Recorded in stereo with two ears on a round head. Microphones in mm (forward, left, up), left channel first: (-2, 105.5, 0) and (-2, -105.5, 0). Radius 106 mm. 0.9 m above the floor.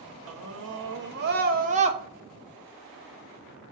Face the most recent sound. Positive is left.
turn(degrees=-20)  # may be behind; listen again after turning